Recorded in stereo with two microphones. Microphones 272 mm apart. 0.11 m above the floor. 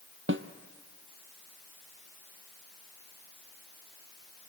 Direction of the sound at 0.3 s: 45° right (ahead or behind).